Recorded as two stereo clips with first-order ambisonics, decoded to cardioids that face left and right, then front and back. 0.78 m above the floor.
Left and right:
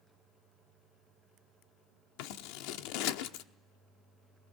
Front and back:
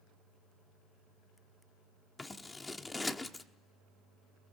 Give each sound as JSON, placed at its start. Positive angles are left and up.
{"t": 2.2, "sound": "scissors", "azimuth_deg": 80, "distance_m": 1.0}